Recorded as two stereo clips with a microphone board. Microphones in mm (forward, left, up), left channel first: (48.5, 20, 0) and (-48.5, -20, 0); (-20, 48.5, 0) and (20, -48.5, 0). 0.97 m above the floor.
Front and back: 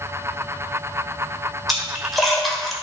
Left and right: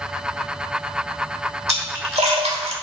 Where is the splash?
70° right, 1.5 m.